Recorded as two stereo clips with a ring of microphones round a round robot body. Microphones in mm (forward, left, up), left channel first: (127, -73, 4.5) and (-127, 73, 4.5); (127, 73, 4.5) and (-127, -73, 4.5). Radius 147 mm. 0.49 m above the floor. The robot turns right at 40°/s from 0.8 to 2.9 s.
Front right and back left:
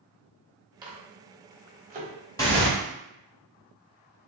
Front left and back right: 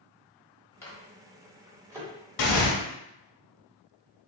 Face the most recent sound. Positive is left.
turn(degrees=70)